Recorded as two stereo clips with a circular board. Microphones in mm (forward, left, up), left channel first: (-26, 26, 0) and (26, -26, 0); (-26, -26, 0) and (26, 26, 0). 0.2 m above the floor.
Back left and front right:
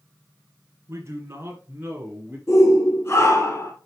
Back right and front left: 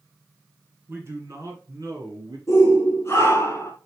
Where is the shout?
Straight behind, 3 m.